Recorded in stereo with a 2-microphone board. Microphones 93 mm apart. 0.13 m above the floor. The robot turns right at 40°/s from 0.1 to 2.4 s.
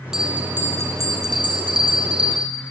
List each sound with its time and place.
0.1 s a bell: 175° right, 4 m; by 2.5 s 85° right, 4 m